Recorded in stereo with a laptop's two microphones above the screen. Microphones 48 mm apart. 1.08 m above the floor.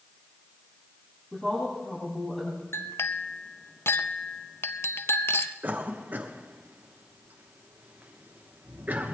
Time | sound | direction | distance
1.3 | a woman speaking | 10° left (ahead or behind) | 6.5 m
2.7 | a clink | 55° left (ahead or behind) | 0.6 m
5.6 | a cough | 35° right (ahead or behind) | 1.1 m